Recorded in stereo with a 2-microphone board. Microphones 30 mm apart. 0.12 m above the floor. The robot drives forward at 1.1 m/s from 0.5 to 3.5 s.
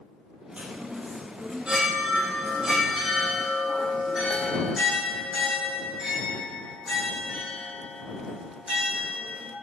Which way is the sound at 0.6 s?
45° right (ahead or behind).